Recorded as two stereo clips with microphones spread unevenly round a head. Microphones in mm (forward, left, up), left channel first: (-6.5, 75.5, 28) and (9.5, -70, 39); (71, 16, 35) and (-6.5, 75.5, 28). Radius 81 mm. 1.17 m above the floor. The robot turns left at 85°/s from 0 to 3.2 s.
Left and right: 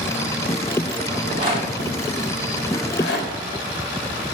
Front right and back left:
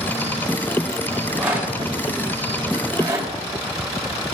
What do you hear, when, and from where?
1.1 s a rattle: 105° right, 4 m; by 3.3 s 80° left, 4 m